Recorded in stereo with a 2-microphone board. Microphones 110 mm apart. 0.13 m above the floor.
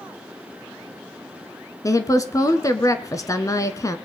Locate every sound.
1.8 s a woman speaking: 30° left (ahead or behind), 1.3 m